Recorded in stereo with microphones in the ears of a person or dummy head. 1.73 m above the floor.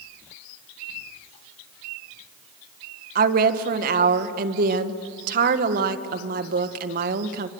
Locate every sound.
3.1 s a woman speaking: 55° right (ahead or behind), 1.6 m